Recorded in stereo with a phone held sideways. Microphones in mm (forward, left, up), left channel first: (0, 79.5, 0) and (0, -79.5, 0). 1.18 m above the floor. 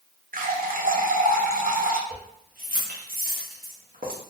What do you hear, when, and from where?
0.3 s a running tap: 65° right (ahead or behind), 0.5 m
2.1 s keys jangling: 65° right (ahead or behind), 0.9 m